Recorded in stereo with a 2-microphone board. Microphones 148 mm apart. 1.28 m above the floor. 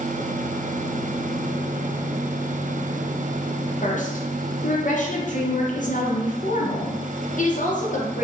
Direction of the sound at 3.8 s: 60° left (ahead or behind).